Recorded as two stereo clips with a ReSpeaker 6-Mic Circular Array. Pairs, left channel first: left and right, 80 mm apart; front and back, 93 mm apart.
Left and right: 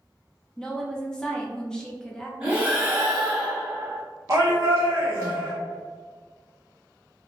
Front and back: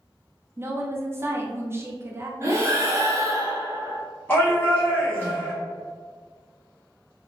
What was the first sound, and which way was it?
A woman speaking, 160° left.